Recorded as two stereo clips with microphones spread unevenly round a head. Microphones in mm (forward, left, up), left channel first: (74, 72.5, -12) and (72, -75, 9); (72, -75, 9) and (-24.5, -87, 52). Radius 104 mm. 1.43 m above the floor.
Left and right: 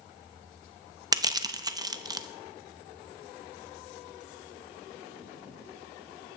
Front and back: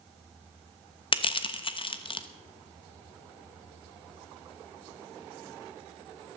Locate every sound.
1.1 s crushing: 35° right, 1.0 m